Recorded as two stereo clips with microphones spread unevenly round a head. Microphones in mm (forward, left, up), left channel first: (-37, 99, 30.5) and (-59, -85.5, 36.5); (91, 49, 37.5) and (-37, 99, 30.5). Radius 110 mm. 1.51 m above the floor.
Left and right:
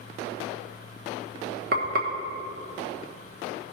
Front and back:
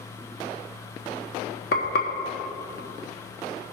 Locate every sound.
1.7 s frying: 45° right, 1.1 m